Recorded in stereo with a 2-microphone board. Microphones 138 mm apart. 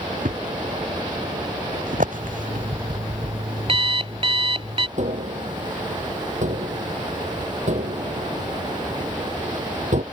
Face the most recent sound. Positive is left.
turn(degrees=-60)  # may be behind; listen again after turning